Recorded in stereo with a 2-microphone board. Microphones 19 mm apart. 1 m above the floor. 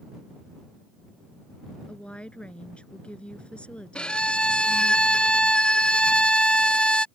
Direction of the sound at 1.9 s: 85° left.